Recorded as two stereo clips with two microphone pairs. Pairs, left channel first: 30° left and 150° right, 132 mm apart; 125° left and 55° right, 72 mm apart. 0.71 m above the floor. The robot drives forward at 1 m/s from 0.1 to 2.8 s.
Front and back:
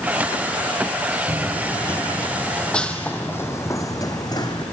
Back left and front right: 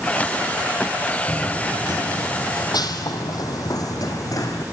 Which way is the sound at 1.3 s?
50° left.